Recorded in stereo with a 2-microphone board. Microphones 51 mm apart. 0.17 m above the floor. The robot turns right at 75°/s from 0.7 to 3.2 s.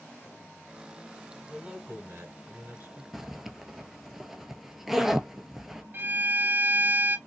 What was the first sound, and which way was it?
A man speaking, 165° right.